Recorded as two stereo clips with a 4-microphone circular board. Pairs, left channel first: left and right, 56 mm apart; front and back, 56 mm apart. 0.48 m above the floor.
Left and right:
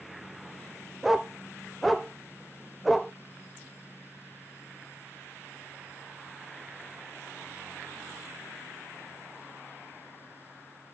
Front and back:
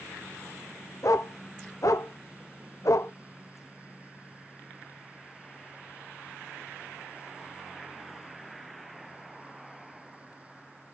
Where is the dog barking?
Straight ahead, 0.5 m.